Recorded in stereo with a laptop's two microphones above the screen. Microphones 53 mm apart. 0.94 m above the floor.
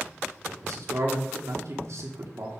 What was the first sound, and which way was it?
A man speaking, 70° right (ahead or behind).